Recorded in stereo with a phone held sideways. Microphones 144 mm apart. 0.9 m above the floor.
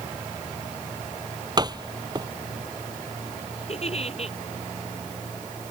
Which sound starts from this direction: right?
A door slam, at 1.6 s.